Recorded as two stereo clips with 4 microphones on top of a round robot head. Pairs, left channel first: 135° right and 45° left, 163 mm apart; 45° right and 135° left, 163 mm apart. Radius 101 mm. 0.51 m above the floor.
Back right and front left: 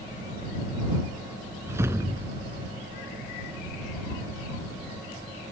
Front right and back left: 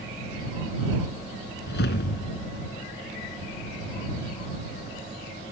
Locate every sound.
1.7 s a whoosh: 25° right